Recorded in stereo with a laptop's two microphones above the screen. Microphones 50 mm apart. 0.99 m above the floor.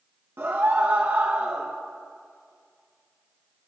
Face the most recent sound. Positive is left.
turn(degrees=-55)  # may be behind; listen again after turning